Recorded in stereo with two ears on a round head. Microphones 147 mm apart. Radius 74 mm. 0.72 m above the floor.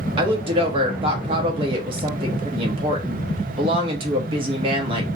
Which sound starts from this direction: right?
A woman speaking, at 0.2 s.